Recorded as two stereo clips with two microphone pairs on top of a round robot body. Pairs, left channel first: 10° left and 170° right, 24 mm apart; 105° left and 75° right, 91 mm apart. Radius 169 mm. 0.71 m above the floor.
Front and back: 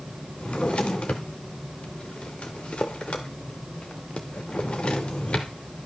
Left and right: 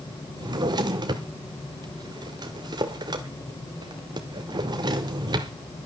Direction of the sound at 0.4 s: 25° right.